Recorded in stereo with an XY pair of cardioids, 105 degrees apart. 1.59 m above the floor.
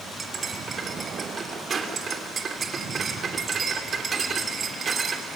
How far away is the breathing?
I don't hear breathing.